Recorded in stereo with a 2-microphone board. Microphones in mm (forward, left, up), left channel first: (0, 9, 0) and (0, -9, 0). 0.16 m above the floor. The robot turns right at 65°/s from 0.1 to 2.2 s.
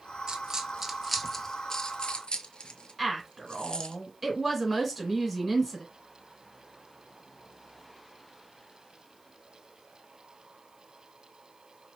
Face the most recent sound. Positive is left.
turn(degrees=0)  # may be behind; listen again after turning